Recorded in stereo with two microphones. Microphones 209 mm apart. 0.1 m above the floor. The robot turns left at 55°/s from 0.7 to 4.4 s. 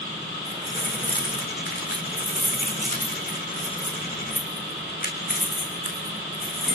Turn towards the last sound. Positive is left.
turn(degrees=45)  # may be behind; listen again after turning